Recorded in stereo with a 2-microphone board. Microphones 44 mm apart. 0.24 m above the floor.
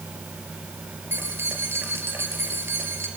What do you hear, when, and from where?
1.1 s keys jangling: 65° right (ahead or behind), 3 m